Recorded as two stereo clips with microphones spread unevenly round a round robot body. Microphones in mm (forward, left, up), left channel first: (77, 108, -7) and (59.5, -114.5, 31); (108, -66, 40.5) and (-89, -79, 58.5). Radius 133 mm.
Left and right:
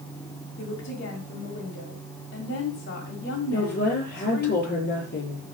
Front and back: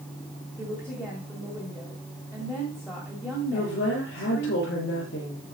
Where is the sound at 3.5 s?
45° left, 6.5 m.